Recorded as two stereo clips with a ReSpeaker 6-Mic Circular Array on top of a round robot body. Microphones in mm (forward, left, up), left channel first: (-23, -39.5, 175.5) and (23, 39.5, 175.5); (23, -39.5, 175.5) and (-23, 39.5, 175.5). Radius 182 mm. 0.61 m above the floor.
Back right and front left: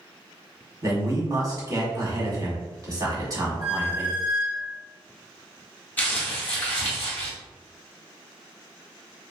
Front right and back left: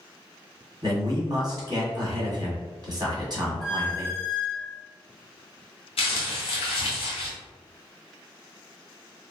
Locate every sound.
0.8 s a man speaking: 95° left, 1.7 m
3.6 s a squeak: 30° left, 1.3 m
6.0 s crumpling: 50° right, 0.6 m